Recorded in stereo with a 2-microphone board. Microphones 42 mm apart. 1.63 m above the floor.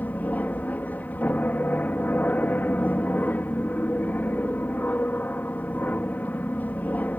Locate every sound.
0.0 s an aircraft: 45° left (ahead or behind)